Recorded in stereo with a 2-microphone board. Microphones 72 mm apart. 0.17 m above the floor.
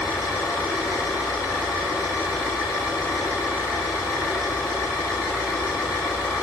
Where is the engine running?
40° left (ahead or behind), 8 m.